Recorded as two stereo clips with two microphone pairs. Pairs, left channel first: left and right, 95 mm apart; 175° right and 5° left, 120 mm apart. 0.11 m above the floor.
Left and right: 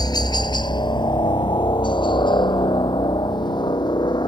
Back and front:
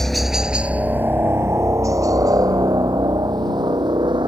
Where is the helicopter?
100° left; by 4.3 s 55° left.